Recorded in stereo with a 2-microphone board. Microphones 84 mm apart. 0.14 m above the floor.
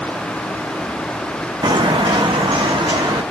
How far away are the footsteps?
About 0.7 m.